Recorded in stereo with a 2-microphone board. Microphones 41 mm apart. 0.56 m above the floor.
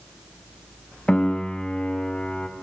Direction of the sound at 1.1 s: 25° left (ahead or behind).